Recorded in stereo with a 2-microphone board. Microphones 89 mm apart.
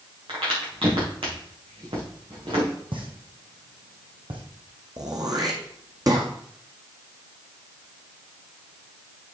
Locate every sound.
0.3 s a crack: 75° right (ahead or behind), 4.5 m
2.9 s a pop: 70° right (ahead or behind), 2.5 m
5.0 s throat clearing: 45° right (ahead or behind), 1.8 m